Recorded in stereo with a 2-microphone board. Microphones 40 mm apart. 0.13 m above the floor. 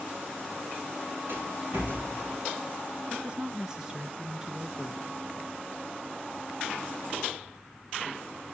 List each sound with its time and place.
1.3 s a rattle: 65° right (ahead or behind), 7.5 m
3.1 s a woman speaking: 15° right (ahead or behind), 1.6 m